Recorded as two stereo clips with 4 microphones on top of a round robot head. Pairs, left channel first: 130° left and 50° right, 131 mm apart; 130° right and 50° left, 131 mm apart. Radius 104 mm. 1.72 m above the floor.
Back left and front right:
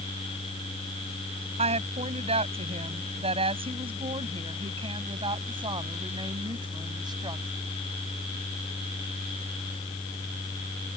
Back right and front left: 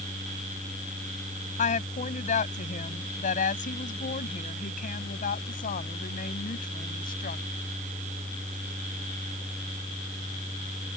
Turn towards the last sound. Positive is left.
turn(degrees=-110)